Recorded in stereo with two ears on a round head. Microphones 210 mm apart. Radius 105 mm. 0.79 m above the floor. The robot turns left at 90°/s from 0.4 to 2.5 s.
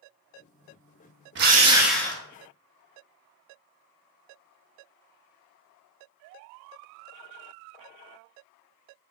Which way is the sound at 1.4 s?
130° right.